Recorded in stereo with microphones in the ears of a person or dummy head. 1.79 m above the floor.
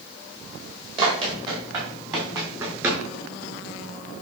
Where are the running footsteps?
30° right (ahead or behind), 5.5 m; by 3.0 s 15° right (ahead or behind), 4.5 m.